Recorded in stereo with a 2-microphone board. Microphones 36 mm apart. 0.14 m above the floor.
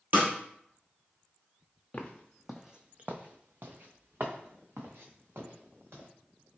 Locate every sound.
0.1 s a snare drum: 55° right (ahead or behind), 1.4 m
1.9 s footsteps: 30° left (ahead or behind), 0.6 m; by 6.1 s 90° right, 1.9 m